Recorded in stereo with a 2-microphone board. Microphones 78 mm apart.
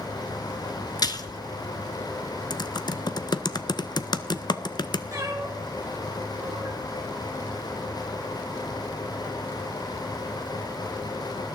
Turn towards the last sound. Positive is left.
turn(degrees=-40)  # may be behind; listen again after turning